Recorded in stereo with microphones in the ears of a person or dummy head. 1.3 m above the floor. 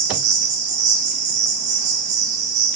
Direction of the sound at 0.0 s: 40° right (ahead or behind).